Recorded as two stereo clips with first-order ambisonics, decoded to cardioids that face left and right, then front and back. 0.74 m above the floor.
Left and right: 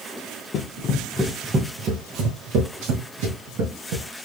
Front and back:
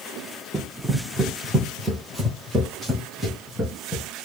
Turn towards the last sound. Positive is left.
turn(degrees=-95)